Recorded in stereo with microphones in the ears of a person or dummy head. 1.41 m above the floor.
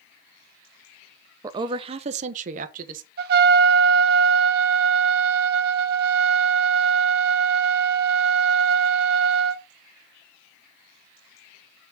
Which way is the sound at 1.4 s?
15° right (ahead or behind).